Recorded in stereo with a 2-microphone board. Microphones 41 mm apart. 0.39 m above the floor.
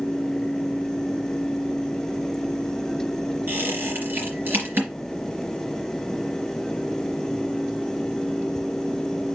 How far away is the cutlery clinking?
I don't hear cutlery clinking.